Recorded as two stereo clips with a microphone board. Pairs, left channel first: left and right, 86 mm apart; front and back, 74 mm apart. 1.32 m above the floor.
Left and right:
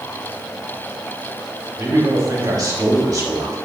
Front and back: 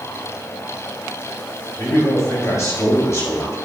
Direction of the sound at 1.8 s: 50° right.